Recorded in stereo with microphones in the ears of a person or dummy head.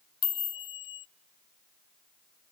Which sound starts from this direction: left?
A chime, at 0.2 s.